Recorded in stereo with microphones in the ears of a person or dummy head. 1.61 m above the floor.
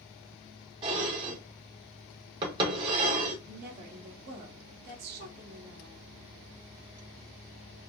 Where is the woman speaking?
50° right (ahead or behind), 1.4 m.